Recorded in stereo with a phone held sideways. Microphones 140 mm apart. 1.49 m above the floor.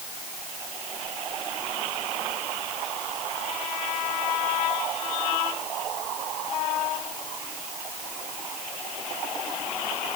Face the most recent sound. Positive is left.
No sound to turn to.